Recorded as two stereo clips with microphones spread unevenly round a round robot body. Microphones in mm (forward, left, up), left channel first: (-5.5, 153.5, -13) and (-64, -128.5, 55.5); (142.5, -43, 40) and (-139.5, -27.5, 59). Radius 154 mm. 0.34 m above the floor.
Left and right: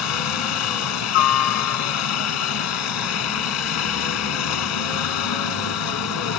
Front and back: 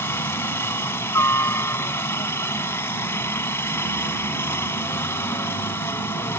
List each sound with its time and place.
0.0 s a helicopter: 80° left